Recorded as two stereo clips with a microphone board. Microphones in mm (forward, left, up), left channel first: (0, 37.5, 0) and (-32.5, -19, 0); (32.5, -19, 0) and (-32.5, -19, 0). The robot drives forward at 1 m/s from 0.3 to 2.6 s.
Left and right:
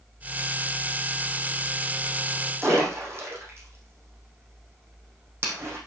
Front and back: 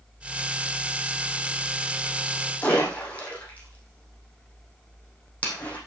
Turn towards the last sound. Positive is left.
turn(degrees=-70)